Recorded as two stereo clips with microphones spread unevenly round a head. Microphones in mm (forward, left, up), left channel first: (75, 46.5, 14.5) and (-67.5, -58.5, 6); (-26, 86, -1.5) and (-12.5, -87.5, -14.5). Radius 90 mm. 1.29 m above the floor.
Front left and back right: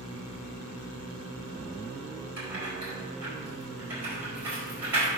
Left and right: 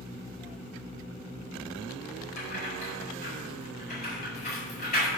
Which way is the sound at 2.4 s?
135° left.